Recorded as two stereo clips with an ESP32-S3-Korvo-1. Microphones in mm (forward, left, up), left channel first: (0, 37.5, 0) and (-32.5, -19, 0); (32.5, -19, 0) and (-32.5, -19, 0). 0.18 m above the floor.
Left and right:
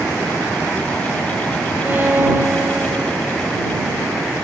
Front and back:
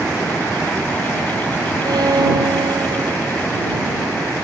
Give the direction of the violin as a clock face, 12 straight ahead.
6 o'clock.